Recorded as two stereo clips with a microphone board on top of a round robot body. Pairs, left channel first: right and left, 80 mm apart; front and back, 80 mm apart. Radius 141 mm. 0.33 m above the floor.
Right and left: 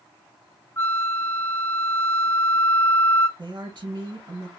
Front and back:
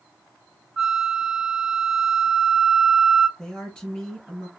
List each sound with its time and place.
0.8 s a flute: 105° right, 0.9 m
3.4 s a woman speaking: 85° left, 3 m